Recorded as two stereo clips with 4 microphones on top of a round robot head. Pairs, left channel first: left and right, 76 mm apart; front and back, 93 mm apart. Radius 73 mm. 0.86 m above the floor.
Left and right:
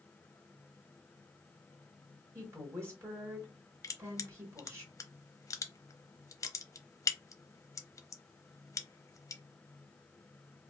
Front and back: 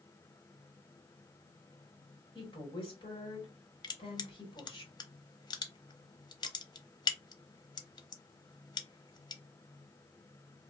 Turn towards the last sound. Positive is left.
turn(degrees=40)